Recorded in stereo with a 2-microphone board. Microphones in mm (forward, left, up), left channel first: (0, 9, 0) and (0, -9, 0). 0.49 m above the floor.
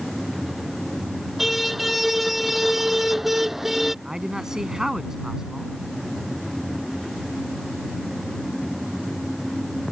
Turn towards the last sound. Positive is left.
turn(degrees=-25)  # may be behind; listen again after turning